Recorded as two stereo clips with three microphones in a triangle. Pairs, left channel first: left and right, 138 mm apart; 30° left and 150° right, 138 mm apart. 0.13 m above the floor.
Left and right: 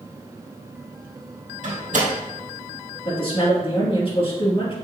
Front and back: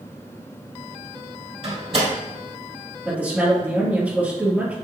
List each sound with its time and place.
1.6 s a door slam: 105° right, 3 m
3.0 s a woman speaking: 130° left, 3 m